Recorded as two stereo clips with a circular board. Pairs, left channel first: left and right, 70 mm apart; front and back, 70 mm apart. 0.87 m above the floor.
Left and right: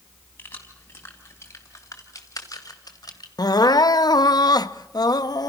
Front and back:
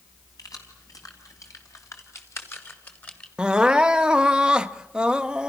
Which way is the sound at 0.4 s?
30° left.